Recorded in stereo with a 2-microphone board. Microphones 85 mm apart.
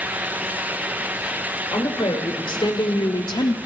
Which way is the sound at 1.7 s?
75° left (ahead or behind).